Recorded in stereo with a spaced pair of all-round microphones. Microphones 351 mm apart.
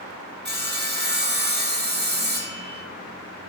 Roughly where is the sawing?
Right.